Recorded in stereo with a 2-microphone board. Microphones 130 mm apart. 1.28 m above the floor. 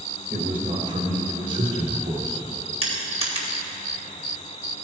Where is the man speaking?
75° right (ahead or behind), 2 m; by 2.4 s 70° right (ahead or behind), 4 m.